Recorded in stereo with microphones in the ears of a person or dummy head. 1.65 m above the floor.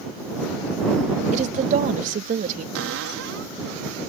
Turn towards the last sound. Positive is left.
turn(degrees=-70)  # may be behind; listen again after turning